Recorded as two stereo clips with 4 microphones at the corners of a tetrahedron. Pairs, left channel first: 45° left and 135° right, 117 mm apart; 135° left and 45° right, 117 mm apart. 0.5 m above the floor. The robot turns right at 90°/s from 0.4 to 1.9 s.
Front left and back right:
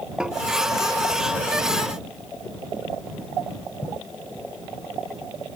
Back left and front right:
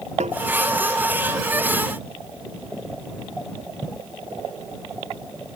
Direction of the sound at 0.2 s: 50° right.